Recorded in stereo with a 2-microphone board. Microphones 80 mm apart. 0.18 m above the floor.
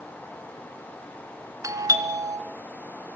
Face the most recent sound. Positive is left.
turn(degrees=-45)  # may be behind; listen again after turning